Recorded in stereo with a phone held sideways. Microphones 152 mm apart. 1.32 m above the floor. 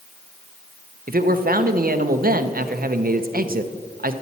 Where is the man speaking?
75° right (ahead or behind), 0.7 m.